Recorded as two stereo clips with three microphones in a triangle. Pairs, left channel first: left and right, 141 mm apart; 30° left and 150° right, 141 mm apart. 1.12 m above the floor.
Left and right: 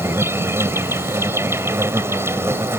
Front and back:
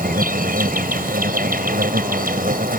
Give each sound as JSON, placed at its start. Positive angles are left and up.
{"t": 0.0, "sound": "an insect", "azimuth_deg": -165}